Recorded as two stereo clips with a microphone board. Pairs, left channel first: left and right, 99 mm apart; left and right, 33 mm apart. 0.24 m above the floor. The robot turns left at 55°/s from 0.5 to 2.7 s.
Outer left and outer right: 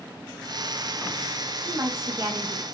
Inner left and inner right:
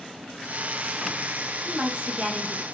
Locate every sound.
1.6 s a woman speaking: 70° right, 1.3 m; by 2.6 s 125° right, 1.3 m